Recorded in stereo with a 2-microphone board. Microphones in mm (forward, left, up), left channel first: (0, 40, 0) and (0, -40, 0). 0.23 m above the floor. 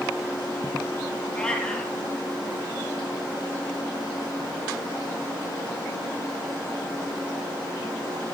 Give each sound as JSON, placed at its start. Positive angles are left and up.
{"t": 1.3, "sound": "a cat meowing", "side_deg": 10, "distance_m": 3.0}